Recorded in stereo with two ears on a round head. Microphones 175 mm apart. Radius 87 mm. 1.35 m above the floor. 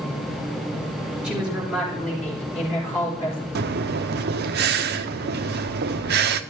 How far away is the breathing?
About 0.6 m.